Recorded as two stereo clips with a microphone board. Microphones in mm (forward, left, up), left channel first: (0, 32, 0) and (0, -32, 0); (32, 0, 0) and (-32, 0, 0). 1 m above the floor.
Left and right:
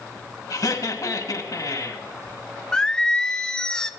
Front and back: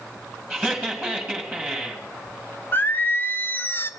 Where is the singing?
25° left, 0.5 m.